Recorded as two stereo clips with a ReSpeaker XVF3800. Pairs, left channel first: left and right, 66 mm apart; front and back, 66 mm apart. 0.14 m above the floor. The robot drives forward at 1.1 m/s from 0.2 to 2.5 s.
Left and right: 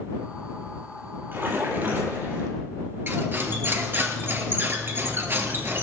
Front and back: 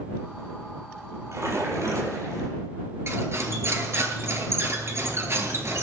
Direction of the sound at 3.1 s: 140° right.